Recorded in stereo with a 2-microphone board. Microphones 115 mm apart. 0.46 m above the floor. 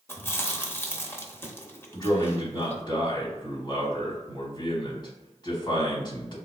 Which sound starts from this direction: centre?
Chewing, at 0.1 s.